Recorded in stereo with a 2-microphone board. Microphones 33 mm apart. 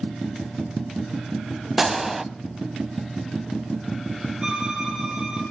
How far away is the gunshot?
About 0.9 m.